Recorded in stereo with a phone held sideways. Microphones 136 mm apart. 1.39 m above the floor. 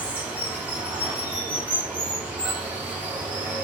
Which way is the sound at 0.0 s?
10° right (ahead or behind).